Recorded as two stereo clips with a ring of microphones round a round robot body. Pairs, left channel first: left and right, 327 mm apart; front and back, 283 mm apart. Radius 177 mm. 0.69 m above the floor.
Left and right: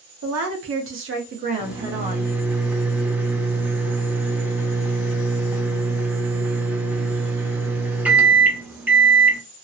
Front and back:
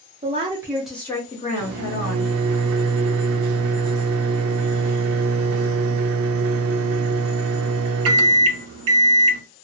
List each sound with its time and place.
0.2 s a woman speaking: 120° right, 1.0 m; by 2.3 s 5° right, 1.1 m
1.6 s a microwave: 175° right, 0.5 m